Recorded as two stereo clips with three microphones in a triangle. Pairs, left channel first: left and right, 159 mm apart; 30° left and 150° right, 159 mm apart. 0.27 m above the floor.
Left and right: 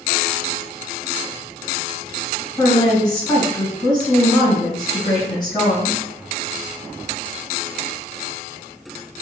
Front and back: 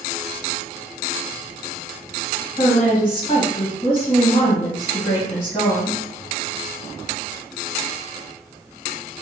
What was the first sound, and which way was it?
A woman speaking, 45° left.